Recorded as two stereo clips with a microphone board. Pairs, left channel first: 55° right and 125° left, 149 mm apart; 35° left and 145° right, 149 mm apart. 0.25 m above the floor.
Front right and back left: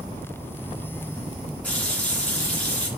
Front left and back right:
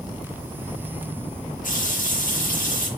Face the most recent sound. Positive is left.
turn(degrees=25)